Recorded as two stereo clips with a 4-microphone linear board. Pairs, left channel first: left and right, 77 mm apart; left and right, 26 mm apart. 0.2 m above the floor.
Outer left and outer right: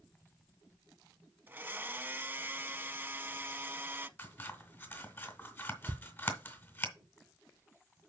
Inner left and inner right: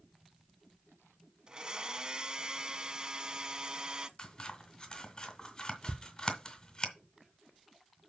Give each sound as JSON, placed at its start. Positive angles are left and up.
{"t": 1.5, "sound": "a blender", "side_deg": -30, "distance_m": 0.6}
{"t": 4.2, "sound": "scissors", "side_deg": 30, "distance_m": 1.8}
{"t": 5.9, "sound": "ticking", "side_deg": -85, "distance_m": 0.8}